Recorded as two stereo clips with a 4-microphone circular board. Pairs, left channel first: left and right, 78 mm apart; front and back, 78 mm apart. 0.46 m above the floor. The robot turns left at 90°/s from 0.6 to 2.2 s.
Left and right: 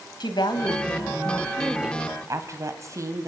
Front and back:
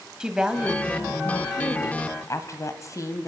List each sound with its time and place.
0.2 s a woman speaking: 100° left, 2.5 m; by 3.3 s 45° right, 2.5 m